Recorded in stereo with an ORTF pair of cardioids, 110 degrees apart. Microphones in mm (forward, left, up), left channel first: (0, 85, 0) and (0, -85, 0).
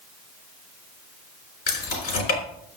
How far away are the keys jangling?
About 3.5 m.